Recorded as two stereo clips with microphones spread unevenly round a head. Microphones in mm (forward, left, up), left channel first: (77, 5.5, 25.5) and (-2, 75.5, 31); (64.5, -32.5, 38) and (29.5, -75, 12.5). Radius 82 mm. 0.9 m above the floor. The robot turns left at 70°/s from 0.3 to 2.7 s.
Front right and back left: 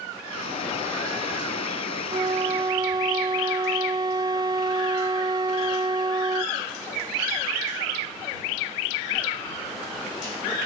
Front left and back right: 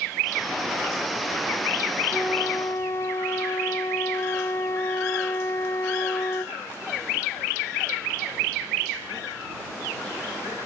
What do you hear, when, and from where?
2.1 s a flute: 155° left; by 6.6 s 110° left